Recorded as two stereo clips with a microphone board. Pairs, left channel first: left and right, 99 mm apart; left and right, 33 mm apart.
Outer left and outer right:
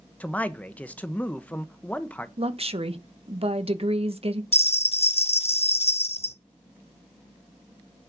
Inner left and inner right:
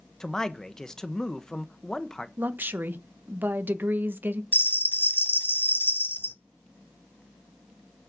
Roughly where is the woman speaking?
Right.